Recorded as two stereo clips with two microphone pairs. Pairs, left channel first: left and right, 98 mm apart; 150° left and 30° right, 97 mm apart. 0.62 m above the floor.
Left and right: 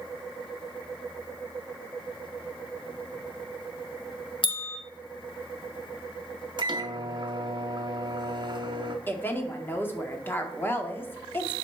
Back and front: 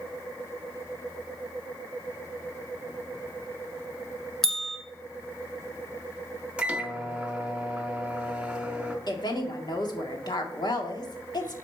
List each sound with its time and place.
4.4 s a bell: 65° left, 1.7 m
6.6 s a microwave: 105° right, 1.0 m
9.1 s a woman speaking: 150° left, 1.5 m